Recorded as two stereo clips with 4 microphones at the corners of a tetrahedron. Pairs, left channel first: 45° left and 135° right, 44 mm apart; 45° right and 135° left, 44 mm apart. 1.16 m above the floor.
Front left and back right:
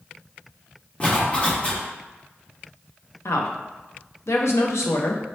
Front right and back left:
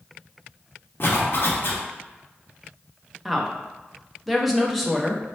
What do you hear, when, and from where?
1.0 s a zipper: 15° right, 1.0 m
3.2 s a woman speaking: 45° left, 0.7 m